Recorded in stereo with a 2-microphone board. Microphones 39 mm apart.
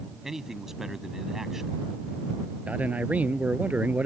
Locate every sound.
0.2 s a man speaking: 10° right (ahead or behind)
2.7 s a man speaking: 35° right (ahead or behind)